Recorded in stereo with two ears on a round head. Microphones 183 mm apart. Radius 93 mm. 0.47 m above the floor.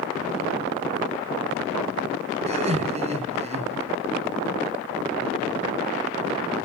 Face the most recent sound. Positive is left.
turn(degrees=-35)  # may be behind; listen again after turning